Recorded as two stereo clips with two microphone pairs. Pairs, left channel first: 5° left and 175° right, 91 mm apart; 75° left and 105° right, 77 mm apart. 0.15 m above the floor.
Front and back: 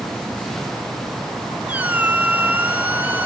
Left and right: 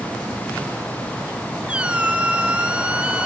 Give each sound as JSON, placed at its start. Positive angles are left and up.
{"t": 1.7, "sound": "a squeak", "azimuth_deg": -145, "distance_m": 0.9}